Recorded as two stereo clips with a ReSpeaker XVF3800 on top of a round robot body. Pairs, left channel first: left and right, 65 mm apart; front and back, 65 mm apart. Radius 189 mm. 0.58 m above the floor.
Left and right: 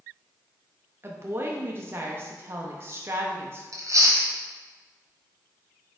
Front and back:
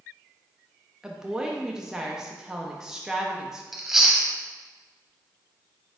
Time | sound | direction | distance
1.0 | a woman speaking | 105° right | 0.8 m
3.7 | chewing | 95° right | 1.3 m